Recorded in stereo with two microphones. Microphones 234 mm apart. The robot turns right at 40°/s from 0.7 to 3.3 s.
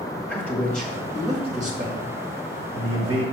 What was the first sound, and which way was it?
A man speaking, 5° left (ahead or behind).